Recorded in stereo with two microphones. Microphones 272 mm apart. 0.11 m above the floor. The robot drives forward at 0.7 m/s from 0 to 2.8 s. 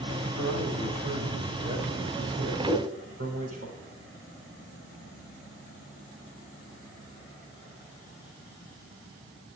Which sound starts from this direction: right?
A man speaking, at 0.4 s.